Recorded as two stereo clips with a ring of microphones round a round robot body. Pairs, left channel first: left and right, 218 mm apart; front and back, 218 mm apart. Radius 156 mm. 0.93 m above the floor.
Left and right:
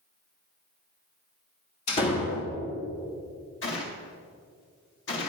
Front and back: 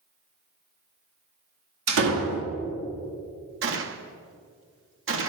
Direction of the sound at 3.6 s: 145° left.